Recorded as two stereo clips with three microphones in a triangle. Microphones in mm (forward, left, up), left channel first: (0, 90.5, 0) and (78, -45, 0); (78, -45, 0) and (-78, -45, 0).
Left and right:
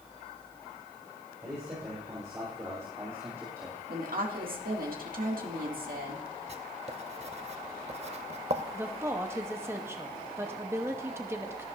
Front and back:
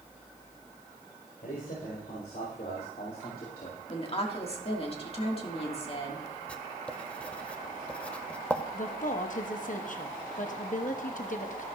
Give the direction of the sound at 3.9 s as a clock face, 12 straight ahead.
2 o'clock.